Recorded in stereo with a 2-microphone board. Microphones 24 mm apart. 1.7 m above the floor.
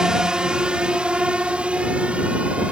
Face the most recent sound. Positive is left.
turn(degrees=-55)  # may be behind; listen again after turning